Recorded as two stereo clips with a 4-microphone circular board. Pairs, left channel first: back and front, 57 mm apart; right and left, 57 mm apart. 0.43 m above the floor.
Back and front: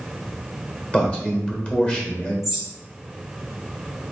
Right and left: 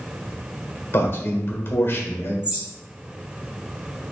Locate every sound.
0.9 s a man speaking: 125° right, 1.4 m
2.4 s a bird: 60° left, 1.2 m